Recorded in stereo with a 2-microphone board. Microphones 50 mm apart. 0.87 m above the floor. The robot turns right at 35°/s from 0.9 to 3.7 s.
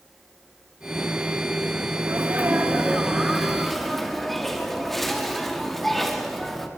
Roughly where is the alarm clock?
No alarm clock in this recording.